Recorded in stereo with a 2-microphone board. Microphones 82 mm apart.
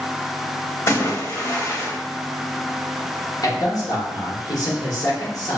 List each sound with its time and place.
0.9 s a splash: 40° left (ahead or behind), 0.6 m
3.4 s a man speaking: 55° left (ahead or behind), 1.1 m